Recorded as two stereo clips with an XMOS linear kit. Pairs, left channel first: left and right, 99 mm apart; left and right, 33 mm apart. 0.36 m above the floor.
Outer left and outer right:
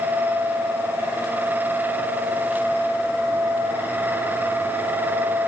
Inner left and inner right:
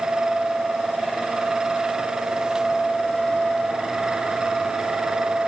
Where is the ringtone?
No ringtone in this recording.